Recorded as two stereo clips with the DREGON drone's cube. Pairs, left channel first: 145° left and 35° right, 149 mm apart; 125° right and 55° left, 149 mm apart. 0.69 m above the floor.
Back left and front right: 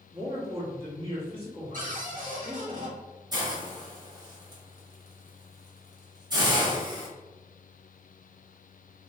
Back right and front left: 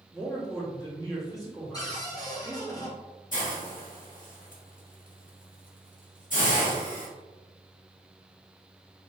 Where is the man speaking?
65° right, 1.4 m.